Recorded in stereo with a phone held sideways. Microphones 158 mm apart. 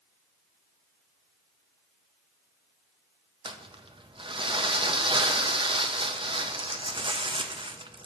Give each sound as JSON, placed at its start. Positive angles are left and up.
{"t": 3.5, "sound": "crumpling", "side_deg": -35, "distance_m": 0.5}